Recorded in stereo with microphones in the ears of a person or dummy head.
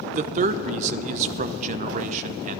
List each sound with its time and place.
0.1 s a man speaking: 45° right (ahead or behind), 0.5 m